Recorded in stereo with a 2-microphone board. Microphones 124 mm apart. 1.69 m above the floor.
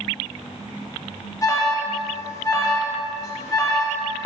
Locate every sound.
1.4 s an alarm: 30° left (ahead or behind), 0.5 m